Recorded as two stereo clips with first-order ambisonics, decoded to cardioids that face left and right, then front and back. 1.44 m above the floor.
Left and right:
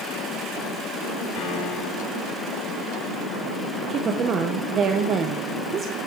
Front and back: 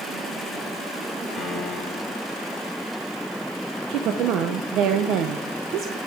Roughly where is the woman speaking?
Behind right.